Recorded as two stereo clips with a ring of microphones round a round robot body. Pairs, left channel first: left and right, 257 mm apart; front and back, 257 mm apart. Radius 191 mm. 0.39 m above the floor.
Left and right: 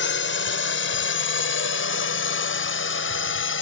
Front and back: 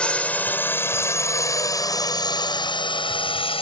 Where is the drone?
85° left; by 3.6 s 65° left.